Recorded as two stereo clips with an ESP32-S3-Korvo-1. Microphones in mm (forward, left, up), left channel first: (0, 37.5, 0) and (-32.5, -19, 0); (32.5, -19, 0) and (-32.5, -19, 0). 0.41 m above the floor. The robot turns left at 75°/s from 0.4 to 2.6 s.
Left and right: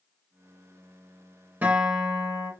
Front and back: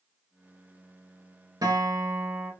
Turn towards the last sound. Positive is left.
turn(degrees=105)